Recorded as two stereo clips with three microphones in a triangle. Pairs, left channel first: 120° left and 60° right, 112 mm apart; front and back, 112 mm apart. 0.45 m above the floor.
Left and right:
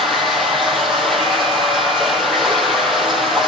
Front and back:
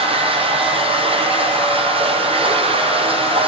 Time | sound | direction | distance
0.0 | running water | 150° right | 5 m